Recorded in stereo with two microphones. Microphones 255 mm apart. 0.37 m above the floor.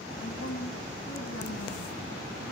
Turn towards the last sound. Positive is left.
turn(degrees=75)  # may be behind; listen again after turning